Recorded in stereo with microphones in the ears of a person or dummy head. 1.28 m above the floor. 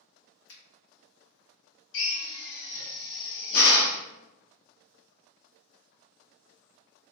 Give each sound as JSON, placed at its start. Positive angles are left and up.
{"t": 0.5, "sound": "a finger snap", "side_deg": 60, "distance_m": 0.8}
{"t": 1.9, "sound": "a drill", "side_deg": 65, "distance_m": 0.7}